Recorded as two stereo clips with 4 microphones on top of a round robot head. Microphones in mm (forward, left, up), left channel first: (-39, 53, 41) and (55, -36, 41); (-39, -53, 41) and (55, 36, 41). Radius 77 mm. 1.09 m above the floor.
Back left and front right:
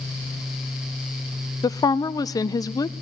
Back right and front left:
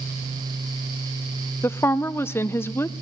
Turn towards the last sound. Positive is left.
turn(degrees=170)